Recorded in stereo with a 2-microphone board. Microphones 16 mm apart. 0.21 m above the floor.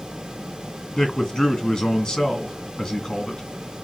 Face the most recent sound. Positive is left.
turn(degrees=40)  # may be behind; listen again after turning